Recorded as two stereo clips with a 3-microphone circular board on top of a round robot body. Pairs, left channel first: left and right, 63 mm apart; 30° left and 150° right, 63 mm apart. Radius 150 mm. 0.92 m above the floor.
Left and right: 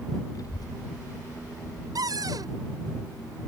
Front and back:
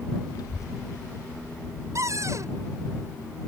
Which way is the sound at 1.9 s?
110° right.